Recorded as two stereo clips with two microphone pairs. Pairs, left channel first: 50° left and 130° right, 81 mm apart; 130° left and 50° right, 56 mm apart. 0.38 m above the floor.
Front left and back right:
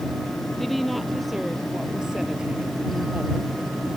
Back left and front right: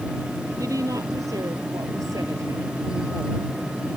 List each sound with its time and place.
0.6 s a woman speaking: 35° right; by 3.5 s 60° right